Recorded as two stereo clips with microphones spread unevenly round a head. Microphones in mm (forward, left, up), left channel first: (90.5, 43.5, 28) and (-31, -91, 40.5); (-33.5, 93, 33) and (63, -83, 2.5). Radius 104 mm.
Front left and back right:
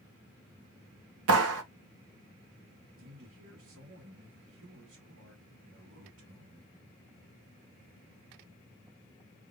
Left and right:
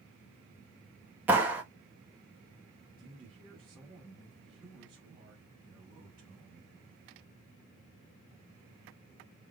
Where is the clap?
145° right, 1.2 m.